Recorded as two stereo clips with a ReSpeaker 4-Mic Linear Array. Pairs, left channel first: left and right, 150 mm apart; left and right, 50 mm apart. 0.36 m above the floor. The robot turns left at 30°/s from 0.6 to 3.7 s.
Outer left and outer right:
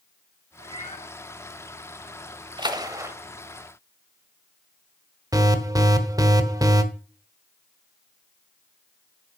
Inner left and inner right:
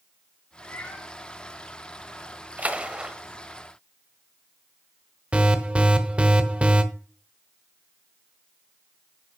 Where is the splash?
30° right (ahead or behind), 1.1 m; by 3.1 s 15° right (ahead or behind), 1.1 m.